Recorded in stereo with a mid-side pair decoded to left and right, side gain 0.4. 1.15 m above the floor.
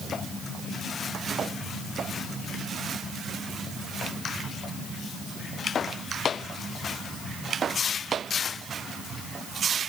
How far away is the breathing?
I don't hear breathing.